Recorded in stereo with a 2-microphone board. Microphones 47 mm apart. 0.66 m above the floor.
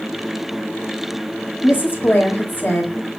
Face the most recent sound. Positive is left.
turn(degrees=45)  # may be behind; listen again after turning